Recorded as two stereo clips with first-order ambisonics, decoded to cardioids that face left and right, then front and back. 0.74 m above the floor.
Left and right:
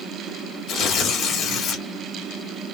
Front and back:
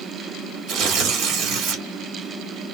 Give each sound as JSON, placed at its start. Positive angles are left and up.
{"t": 0.7, "sound": "tearing paper", "azimuth_deg": 140, "distance_m": 1.8}